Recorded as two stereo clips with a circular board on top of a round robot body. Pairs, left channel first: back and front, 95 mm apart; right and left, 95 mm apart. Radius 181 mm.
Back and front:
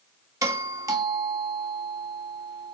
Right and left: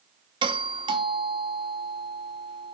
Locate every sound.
0.4 s a doorbell: 55° left, 2.5 m